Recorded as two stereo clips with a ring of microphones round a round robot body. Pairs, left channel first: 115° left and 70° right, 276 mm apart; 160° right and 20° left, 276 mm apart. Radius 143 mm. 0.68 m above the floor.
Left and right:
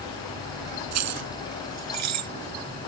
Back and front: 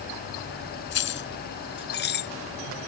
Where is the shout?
I don't hear a shout.